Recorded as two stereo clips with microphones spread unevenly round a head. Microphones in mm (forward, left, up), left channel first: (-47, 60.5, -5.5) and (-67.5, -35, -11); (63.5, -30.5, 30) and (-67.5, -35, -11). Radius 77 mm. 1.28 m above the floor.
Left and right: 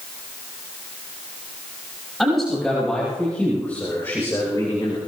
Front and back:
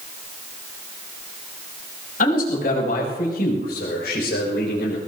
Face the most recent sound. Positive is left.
turn(degrees=15)